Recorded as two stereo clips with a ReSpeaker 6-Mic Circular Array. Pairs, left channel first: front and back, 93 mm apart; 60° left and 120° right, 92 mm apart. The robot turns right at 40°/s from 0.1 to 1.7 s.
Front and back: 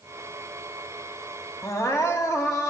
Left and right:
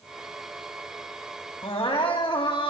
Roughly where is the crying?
Ahead left.